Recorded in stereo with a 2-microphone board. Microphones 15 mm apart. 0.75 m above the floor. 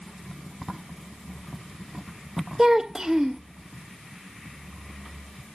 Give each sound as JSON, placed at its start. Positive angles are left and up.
{"t": 2.6, "sound": "a child speaking", "side_deg": -30, "distance_m": 0.5}